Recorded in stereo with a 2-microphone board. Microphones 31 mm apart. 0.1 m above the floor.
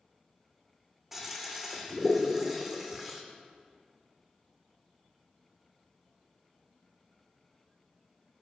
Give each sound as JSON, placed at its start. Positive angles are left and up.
{"t": 1.1, "sound": "a toilet flushing", "side_deg": -10, "distance_m": 1.8}